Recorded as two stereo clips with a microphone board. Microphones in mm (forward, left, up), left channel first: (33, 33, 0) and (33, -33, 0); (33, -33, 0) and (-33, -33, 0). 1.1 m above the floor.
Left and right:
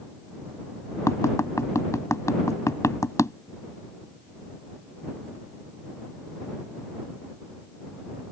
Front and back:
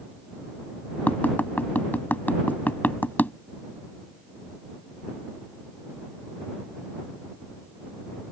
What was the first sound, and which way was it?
Tapping, 60° left.